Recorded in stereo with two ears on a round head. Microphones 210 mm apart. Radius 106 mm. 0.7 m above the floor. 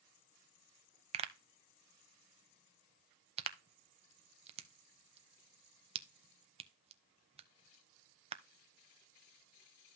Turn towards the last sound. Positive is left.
turn(degrees=-25)  # may be behind; listen again after turning